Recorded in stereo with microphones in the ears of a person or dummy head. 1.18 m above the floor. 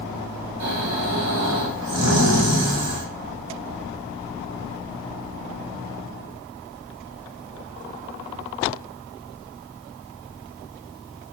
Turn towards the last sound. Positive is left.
turn(degrees=-80)